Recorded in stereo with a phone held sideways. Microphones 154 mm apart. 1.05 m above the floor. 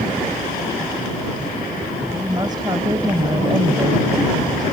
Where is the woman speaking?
30° right (ahead or behind).